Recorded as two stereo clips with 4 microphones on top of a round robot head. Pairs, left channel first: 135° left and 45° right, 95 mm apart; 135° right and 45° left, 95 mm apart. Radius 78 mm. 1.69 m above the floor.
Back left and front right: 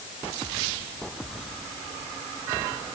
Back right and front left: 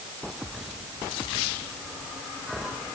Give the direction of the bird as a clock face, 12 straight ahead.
No bird in this recording.